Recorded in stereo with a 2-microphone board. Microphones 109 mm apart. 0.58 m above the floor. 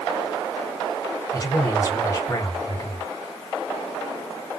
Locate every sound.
1.3 s a man speaking: 25° left (ahead or behind), 2 m